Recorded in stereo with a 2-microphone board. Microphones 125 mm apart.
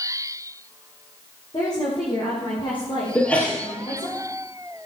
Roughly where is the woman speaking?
Left.